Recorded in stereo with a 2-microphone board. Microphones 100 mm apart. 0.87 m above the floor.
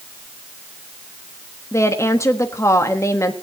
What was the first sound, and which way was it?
A woman speaking, 30° left (ahead or behind).